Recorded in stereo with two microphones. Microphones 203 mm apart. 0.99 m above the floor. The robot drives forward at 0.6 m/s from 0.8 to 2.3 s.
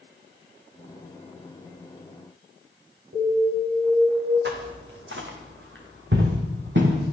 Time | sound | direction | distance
3.1 | an alarm | 50° right (ahead or behind) | 8.5 m
4.5 | footsteps | 65° right (ahead or behind) | 3 m